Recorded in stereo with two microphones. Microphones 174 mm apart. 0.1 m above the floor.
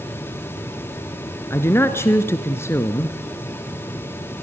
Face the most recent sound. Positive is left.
turn(degrees=15)  # may be behind; listen again after turning